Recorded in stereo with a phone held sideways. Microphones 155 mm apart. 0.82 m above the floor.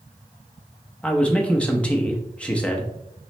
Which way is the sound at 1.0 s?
5° left (ahead or behind).